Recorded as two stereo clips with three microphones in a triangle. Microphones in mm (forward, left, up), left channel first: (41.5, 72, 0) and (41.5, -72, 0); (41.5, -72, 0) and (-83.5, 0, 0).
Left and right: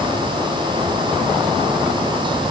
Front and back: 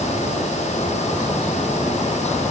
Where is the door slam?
No door slam in this recording.